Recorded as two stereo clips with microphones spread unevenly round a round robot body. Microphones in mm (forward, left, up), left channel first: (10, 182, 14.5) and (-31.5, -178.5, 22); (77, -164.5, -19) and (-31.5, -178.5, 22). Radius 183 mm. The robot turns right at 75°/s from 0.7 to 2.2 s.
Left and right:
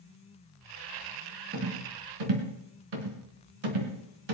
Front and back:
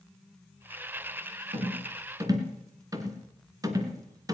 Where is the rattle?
160° right, 3 m; by 4.3 s 110° right, 3 m.